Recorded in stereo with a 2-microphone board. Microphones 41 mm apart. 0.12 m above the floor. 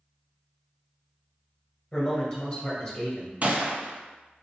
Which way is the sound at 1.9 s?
15° left (ahead or behind).